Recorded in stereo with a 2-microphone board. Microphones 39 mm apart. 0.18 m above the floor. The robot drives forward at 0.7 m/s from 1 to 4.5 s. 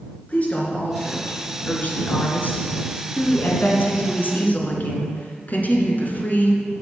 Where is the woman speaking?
35° left (ahead or behind), 3 m; by 6.6 s 45° left (ahead or behind), 2.5 m.